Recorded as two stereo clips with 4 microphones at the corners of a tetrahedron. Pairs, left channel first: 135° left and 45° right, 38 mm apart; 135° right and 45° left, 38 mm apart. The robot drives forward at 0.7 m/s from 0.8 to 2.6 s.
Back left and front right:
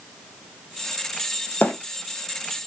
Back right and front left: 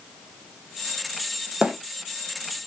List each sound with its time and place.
1.6 s a bird: 105° left, 1.1 m; by 1.7 s 110° left, 1.1 m